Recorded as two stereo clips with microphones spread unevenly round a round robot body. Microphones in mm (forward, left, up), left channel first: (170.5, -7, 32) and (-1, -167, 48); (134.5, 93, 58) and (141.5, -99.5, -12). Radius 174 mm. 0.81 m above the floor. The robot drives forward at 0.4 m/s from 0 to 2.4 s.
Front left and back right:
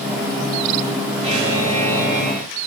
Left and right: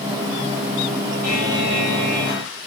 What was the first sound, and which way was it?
A buzzer, 110° left.